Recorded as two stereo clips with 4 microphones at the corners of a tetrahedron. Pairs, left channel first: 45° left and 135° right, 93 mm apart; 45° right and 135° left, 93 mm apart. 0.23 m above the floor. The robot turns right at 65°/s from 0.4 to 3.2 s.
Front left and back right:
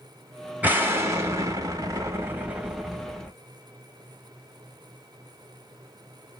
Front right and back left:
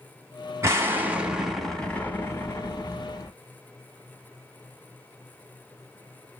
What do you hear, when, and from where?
0.6 s an explosion: 160° left, 0.7 m; by 3.3 s 30° right, 0.7 m